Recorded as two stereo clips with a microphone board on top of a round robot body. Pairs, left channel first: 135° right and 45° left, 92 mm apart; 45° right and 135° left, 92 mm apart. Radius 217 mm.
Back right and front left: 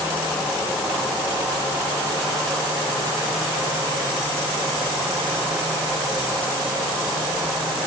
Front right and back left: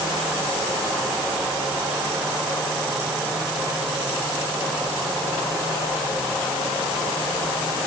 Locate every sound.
Only background noise.